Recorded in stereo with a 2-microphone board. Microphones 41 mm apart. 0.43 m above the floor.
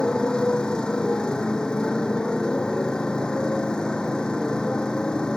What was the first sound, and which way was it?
A motorcycle, 20° left (ahead or behind).